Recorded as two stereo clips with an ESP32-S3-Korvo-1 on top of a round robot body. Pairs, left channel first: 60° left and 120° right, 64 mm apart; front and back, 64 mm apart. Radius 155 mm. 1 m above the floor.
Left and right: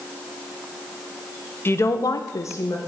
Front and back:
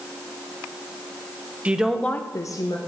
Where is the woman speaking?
110° left, 1.1 m; by 2.8 s 10° left, 1.4 m.